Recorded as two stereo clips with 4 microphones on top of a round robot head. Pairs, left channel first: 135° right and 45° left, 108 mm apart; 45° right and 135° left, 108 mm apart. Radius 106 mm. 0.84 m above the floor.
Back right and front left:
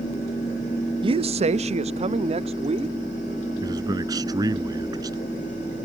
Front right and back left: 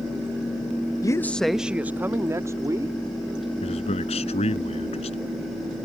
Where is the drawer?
I don't hear a drawer.